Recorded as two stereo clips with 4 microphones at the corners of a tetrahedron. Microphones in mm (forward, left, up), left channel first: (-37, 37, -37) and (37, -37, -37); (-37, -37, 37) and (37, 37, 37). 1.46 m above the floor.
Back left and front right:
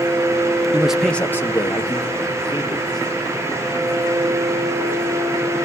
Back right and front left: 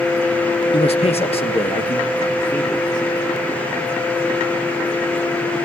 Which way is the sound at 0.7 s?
120° right.